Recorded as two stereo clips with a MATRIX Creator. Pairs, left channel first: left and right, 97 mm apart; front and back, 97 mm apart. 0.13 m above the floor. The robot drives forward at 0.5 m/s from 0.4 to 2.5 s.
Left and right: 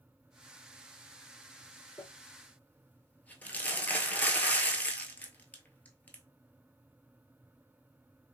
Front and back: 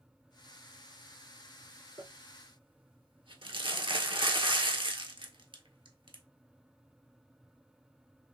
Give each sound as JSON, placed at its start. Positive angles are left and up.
{"t": 2.0, "sound": "crumpling", "azimuth_deg": 150, "distance_m": 0.5}